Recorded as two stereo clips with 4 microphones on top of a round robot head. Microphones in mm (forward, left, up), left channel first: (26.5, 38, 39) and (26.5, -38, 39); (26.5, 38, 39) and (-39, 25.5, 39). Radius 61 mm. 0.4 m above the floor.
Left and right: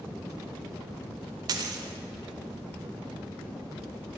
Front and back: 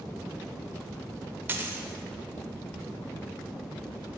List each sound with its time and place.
1.5 s a dropped coin: 110° right, 0.5 m